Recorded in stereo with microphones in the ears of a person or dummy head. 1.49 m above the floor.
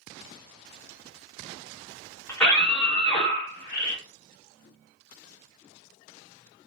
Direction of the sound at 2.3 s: 15° left (ahead or behind).